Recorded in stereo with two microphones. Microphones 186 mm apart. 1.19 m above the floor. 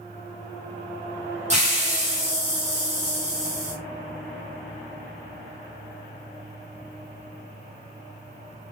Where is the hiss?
35° right (ahead or behind), 1.5 m.